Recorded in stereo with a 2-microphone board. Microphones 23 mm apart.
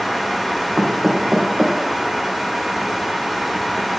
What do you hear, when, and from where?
0.8 s knocking: 45° right (ahead or behind), 4.5 m